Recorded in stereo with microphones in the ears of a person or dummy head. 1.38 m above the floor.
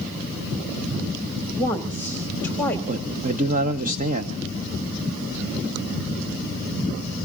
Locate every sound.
1.5 s a woman speaking: 10° left (ahead or behind), 2.5 m
2.9 s a man speaking: 40° right (ahead or behind), 1.0 m